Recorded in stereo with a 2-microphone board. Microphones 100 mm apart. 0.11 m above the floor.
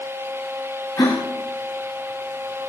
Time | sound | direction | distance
1.0 | a gasp | 30° left (ahead or behind) | 3.5 m